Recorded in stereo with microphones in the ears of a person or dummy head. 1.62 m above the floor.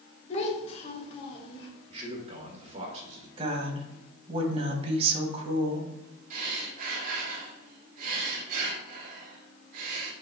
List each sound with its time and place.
0.3 s a child speaking: 45° left (ahead or behind), 2 m; by 1.7 s 35° left (ahead or behind), 2.5 m
1.9 s a man speaking: 40° right (ahead or behind), 1.7 m
3.4 s a woman speaking: 35° right (ahead or behind), 1.7 m
6.3 s breathing: 50° right (ahead or behind), 1.6 m